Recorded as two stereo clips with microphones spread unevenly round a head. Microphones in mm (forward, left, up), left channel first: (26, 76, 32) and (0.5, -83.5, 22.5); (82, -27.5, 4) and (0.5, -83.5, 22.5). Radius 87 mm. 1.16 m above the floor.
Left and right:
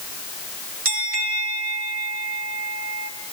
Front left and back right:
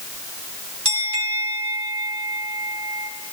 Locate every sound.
0.8 s a bell: 135° right, 4 m